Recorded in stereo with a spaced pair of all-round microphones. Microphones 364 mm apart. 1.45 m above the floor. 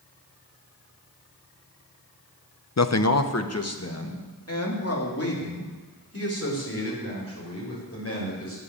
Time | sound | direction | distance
2.8 | a man speaking | 45° left (ahead or behind) | 0.6 m